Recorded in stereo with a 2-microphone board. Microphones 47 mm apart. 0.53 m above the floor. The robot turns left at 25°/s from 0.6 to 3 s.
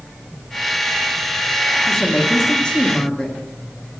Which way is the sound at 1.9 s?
10° left (ahead or behind).